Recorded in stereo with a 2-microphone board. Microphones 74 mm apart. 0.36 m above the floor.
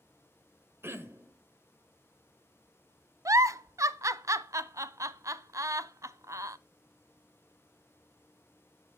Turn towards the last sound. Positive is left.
turn(degrees=-50)  # may be behind; listen again after turning